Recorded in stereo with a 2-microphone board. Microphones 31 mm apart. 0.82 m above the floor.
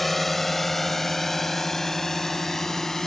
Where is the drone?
5° left (ahead or behind); by 3.1 s 10° left (ahead or behind).